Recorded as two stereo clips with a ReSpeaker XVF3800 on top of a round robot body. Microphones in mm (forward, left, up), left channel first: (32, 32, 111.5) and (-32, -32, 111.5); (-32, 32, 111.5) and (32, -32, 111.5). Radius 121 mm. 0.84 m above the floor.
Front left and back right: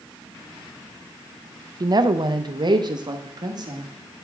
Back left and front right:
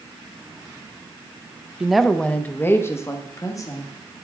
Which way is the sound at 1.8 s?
125° right.